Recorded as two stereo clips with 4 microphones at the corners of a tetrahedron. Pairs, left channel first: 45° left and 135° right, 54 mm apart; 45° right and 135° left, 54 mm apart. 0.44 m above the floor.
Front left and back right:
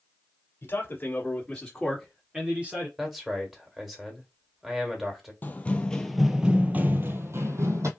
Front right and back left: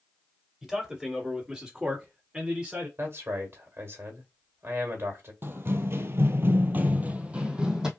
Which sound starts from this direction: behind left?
A man speaking, at 3.0 s.